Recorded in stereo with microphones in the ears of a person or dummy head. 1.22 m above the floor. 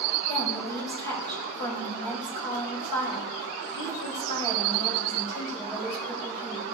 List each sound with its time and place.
0.3 s a woman speaking: 15° right (ahead or behind), 5.5 m